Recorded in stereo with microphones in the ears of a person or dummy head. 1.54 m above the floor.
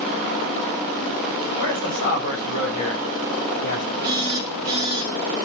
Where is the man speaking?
65° left (ahead or behind), 8.5 m.